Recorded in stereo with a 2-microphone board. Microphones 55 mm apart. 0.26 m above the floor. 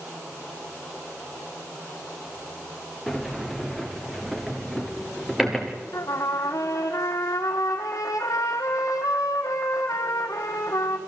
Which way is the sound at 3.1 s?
Centre (ahead or behind).